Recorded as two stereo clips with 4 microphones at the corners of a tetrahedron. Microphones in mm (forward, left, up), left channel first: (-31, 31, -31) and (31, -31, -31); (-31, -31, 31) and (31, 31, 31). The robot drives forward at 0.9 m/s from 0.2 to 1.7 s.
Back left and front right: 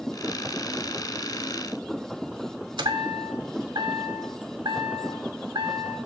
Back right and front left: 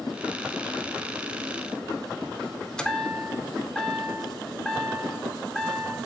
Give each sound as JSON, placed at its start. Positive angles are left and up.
{"t": 2.8, "sound": "a chime", "azimuth_deg": -55, "distance_m": 0.5}